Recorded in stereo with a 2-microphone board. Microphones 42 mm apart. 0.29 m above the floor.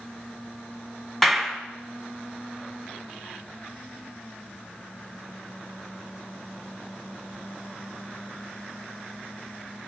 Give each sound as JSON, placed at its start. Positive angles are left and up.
{"t": 1.2, "sound": "a clap", "side_deg": 10, "distance_m": 2.0}